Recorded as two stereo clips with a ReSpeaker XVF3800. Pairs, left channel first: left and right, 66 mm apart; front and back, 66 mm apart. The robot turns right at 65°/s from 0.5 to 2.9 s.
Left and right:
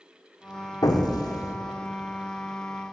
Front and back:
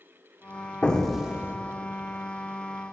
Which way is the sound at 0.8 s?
70° left.